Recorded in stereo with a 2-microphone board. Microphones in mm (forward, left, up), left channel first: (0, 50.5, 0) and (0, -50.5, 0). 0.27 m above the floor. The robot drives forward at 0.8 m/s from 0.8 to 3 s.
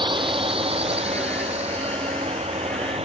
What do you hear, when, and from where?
0.0 s a drone: 55° right (ahead or behind); by 3.0 s 80° right